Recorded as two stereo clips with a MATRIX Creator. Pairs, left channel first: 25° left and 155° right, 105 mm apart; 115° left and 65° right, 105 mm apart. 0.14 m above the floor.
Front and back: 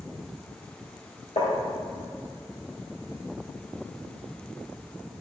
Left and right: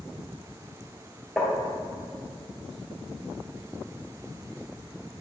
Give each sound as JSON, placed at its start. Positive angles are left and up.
{"t": 1.4, "sound": "tapping", "azimuth_deg": 15, "distance_m": 3.0}